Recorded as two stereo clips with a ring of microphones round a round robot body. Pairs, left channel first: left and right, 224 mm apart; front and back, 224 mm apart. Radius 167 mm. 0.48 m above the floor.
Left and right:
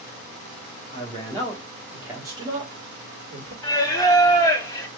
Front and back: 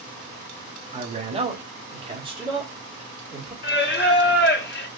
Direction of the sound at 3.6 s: 20° left.